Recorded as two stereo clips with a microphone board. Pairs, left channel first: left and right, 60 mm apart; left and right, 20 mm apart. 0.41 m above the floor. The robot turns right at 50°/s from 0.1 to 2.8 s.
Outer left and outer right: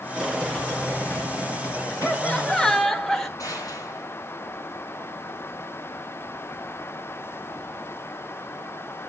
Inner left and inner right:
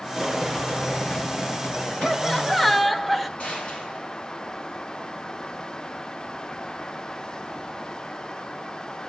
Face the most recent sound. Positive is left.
turn(degrees=65)  # may be behind; listen again after turning